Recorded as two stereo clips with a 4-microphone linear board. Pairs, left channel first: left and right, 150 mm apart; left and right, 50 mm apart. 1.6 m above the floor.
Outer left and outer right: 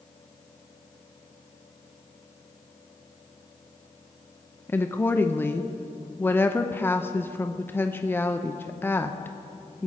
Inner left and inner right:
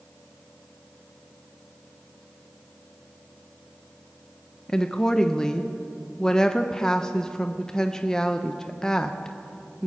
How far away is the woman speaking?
About 0.5 m.